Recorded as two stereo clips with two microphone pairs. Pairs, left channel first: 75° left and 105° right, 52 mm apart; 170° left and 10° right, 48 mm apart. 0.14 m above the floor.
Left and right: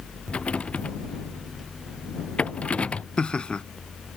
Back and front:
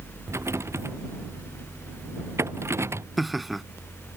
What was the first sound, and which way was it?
A rattle, 10° left.